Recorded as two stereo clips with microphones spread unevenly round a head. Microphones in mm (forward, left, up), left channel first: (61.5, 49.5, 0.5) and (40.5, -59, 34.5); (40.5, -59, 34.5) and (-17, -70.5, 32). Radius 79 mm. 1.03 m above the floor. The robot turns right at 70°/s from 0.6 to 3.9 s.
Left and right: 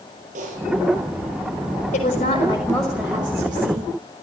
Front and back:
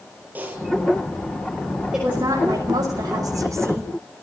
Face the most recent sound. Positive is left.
turn(degrees=-120)